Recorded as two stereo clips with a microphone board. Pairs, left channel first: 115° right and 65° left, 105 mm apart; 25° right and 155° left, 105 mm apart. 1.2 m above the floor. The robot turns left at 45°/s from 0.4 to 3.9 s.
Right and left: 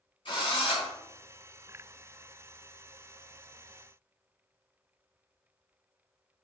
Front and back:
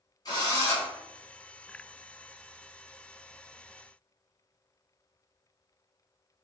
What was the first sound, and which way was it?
A drill, 75° right.